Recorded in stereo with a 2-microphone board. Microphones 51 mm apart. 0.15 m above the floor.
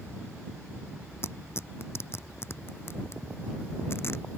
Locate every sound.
1.2 s tearing paper: 50° left (ahead or behind)